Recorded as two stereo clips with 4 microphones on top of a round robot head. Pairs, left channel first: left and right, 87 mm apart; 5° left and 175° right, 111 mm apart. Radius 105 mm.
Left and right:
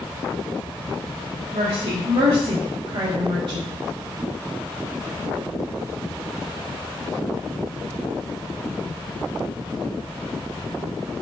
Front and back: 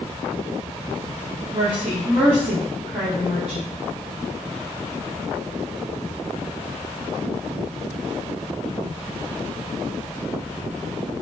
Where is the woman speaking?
95° right, 1.0 m.